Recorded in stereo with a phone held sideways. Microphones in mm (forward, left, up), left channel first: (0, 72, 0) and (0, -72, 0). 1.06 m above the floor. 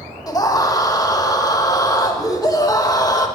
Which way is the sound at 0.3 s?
25° left (ahead or behind).